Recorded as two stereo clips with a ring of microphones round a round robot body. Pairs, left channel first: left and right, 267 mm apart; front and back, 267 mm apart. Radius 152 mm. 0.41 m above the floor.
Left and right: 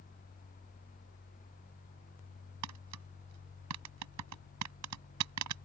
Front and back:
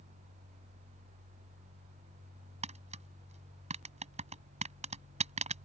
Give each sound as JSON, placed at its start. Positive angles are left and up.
{"t": 2.6, "sound": "tapping", "azimuth_deg": -115}